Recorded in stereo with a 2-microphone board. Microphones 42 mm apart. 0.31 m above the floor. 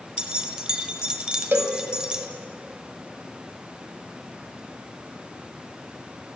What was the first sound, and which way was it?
Keys jangling, 20° right (ahead or behind).